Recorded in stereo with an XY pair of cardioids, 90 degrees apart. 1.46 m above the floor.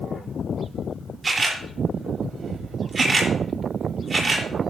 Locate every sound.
1.2 s a camera shutter: 35° right, 4 m